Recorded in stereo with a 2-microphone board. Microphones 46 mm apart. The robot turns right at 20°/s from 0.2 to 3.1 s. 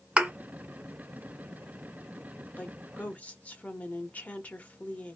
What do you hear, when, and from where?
0.2 s a thud: 25° right (ahead or behind), 1.4 m
2.6 s a woman speaking: 30° left (ahead or behind), 0.8 m